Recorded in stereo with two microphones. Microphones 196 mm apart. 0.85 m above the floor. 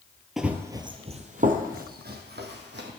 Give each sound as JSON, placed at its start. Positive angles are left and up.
{"t": 0.4, "sound": "running footsteps", "side_deg": 0, "distance_m": 0.8}